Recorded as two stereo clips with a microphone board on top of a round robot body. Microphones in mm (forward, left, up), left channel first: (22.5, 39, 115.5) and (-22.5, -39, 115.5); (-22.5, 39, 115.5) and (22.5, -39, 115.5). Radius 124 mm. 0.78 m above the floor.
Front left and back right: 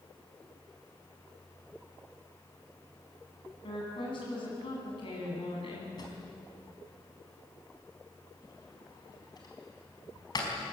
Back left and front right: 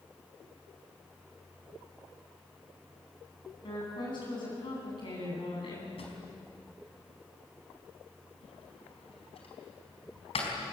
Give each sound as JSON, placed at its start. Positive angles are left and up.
{"t": 3.6, "sound": "a woman speaking", "azimuth_deg": 90, "distance_m": 9.0}
{"t": 6.0, "sound": "a drawer", "azimuth_deg": 105, "distance_m": 4.5}